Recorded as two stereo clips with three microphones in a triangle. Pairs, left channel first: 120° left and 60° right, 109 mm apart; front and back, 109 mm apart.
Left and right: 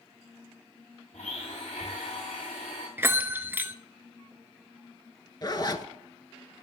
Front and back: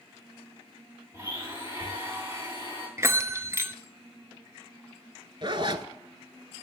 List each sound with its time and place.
1.1 s a blender: 115° left, 7.5 m
3.0 s a bell: 125° right, 0.5 m
5.4 s a zipper: 160° left, 0.6 m